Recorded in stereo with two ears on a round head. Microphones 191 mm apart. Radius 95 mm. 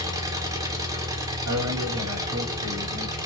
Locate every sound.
0.0 s an engine running: 15° right (ahead or behind), 1.1 m
1.4 s a man speaking: 80° right, 3 m